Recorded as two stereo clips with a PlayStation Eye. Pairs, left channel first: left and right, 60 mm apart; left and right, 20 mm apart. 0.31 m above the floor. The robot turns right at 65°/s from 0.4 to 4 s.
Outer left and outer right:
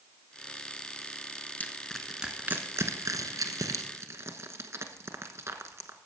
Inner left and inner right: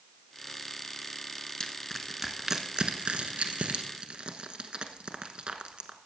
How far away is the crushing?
About 1.1 m.